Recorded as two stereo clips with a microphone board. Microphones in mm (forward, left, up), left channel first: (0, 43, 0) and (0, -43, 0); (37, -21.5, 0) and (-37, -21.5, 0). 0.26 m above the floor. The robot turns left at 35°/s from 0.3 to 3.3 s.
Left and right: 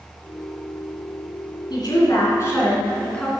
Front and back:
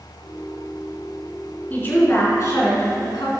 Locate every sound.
1.7 s a woman speaking: 65° left, 3.5 m; by 3.3 s 10° left, 3.5 m